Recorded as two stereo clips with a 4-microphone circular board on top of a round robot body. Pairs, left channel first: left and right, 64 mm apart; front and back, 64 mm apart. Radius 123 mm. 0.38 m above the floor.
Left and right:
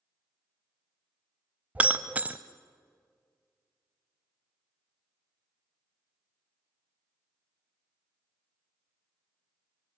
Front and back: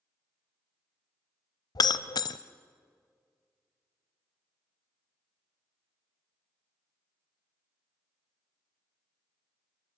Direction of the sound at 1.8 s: 20° right.